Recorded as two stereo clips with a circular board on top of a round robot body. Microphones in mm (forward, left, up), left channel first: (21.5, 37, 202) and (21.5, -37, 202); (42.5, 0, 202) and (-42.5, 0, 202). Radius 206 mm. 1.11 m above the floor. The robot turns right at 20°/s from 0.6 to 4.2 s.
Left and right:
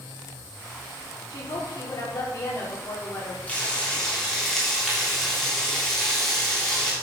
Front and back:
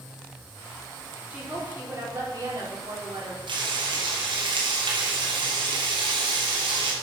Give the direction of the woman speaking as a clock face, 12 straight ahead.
8 o'clock.